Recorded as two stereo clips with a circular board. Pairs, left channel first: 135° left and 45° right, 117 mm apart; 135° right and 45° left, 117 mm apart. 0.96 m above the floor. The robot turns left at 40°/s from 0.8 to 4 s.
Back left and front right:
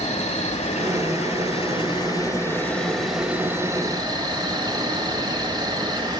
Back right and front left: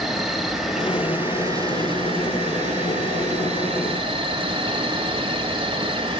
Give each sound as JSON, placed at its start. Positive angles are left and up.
{"t": 0.0, "sound": "an insect", "azimuth_deg": 135, "distance_m": 2.0}